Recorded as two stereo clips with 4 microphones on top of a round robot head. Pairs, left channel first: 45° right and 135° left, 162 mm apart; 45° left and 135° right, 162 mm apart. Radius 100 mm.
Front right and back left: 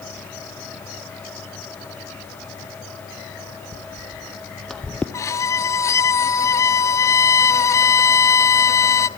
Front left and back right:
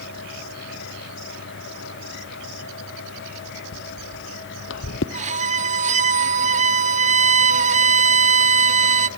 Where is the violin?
115° right, 0.6 m.